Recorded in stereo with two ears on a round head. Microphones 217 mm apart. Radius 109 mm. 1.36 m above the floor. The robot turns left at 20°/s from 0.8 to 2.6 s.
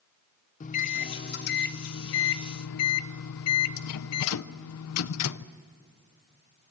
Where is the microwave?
150° left, 0.6 m; by 5.5 s 110° left, 0.6 m.